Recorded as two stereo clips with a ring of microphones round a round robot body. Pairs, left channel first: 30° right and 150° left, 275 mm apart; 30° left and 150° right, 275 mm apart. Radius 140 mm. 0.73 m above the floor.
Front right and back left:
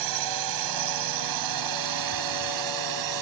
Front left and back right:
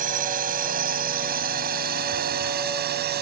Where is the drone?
150° left; by 3.2 s 155° left.